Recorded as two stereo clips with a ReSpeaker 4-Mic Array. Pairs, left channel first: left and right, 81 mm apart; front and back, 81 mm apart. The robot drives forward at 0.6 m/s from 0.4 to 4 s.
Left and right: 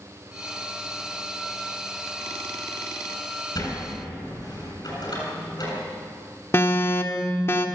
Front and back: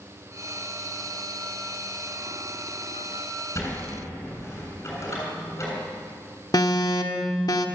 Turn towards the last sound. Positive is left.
turn(degrees=30)